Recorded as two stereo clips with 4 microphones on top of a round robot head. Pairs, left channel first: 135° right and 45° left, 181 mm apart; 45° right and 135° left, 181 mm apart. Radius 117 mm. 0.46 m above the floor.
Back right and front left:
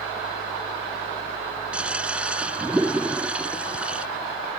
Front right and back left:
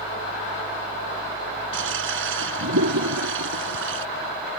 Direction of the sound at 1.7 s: 130° left.